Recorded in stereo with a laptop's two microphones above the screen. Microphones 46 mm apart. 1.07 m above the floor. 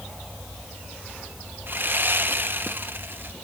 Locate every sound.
1.7 s sawing: 45° right (ahead or behind), 0.9 m